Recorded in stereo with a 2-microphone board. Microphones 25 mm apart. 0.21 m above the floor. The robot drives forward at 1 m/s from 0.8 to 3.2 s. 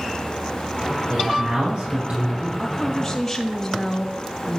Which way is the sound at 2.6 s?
5° left (ahead or behind).